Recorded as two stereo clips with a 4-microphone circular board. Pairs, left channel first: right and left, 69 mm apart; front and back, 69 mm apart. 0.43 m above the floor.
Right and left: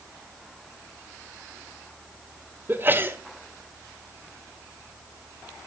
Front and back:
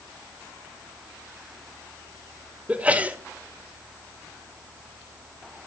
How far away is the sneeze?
About 1.5 m.